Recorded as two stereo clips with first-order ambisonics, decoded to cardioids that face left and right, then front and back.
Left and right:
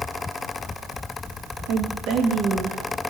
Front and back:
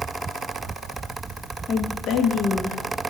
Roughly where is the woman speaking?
Ahead right.